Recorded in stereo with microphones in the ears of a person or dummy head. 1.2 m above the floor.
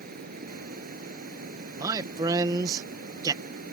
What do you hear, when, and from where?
0.0 s running water: 45° right (ahead or behind)
1.8 s a man speaking: 25° right (ahead or behind)